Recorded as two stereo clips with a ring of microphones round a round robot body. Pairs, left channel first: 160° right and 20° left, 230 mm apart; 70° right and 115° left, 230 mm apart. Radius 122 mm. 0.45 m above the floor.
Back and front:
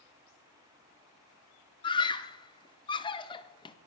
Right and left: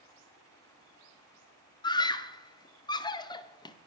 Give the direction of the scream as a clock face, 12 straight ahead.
4 o'clock.